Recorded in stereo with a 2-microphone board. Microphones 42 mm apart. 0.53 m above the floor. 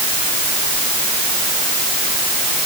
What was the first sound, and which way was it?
Only background noise.